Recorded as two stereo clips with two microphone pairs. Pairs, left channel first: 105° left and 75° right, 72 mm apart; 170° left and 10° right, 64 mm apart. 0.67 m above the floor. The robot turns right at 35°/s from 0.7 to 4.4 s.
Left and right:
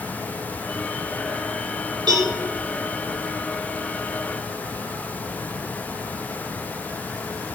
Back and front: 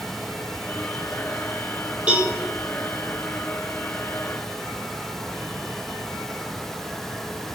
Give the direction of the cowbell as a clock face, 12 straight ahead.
3 o'clock.